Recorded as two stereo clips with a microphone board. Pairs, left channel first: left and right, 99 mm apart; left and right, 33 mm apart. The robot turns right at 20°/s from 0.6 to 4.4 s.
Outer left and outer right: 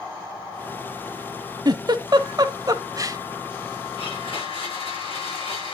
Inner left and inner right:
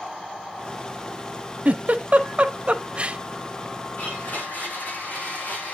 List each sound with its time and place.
1.6 s a giggle: 45° right (ahead or behind), 1.0 m; by 3.2 s 35° right (ahead or behind), 1.0 m
4.0 s a blender: 65° left (ahead or behind), 7.5 m; by 5.7 s 75° left (ahead or behind), 7.5 m